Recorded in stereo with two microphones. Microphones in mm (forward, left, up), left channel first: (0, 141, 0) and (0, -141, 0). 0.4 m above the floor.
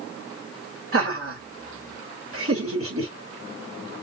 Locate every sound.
0.9 s laughter: 50° right (ahead or behind), 1.6 m